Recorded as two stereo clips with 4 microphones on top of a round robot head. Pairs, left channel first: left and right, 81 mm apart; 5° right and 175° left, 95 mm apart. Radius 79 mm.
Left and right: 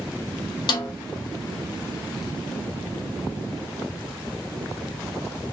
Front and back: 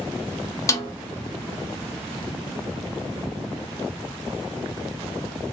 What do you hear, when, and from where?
0.7 s a snare drum: 55° left, 0.8 m